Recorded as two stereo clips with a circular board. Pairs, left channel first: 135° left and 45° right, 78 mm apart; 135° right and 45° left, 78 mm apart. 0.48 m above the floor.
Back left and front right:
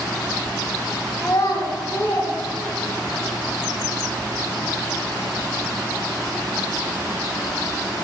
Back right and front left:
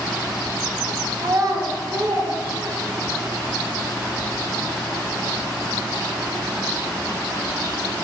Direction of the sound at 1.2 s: 80° left.